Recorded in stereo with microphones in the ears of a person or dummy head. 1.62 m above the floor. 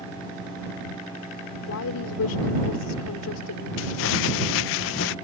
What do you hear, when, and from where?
1.7 s a woman speaking: 85° left
3.8 s crumpling: 55° left (ahead or behind)